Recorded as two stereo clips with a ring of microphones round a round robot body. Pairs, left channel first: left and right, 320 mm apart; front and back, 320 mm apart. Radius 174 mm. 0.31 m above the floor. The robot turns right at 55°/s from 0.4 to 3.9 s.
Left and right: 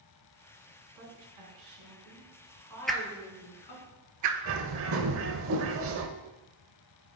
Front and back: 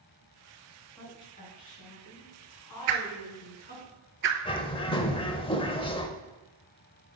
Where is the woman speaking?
90° right, 3.5 m; by 3.9 s 75° left, 3.5 m.